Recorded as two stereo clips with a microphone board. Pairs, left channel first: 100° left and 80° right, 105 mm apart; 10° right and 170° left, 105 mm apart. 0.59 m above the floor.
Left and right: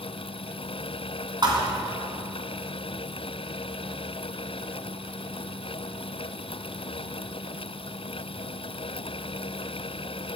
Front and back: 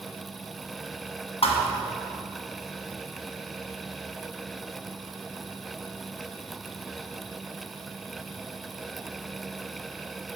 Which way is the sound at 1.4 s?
30° right.